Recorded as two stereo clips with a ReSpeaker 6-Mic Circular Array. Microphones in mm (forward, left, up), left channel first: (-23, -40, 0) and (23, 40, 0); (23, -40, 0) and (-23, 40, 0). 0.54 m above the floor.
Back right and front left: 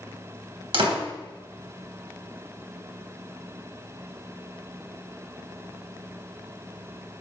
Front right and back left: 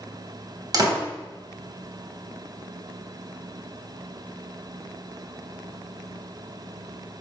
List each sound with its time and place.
0.7 s a door slam: 75° left, 3 m